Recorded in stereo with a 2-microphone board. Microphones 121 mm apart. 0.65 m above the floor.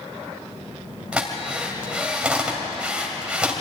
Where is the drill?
10° right (ahead or behind), 3 m.